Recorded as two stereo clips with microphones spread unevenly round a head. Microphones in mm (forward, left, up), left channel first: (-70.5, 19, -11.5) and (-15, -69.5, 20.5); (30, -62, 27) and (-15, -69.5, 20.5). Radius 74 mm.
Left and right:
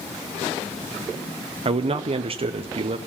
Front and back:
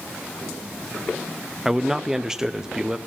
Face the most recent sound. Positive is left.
turn(degrees=-100)